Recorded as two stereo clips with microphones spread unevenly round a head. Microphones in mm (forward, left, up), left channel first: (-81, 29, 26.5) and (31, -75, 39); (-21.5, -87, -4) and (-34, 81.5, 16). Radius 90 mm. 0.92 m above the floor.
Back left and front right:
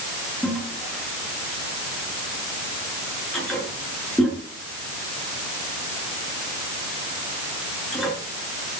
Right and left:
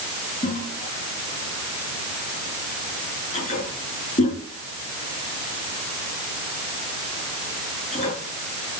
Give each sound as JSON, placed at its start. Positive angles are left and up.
{"t": 0.4, "sound": "a toilet flushing", "azimuth_deg": -135, "distance_m": 7.5}